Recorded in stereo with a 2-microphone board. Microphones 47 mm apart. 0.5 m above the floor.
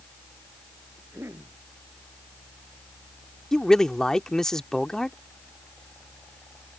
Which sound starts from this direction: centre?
A man speaking, at 3.5 s.